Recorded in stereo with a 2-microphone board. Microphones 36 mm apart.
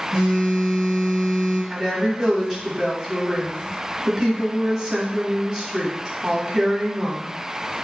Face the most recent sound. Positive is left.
turn(degrees=-20)  # may be behind; listen again after turning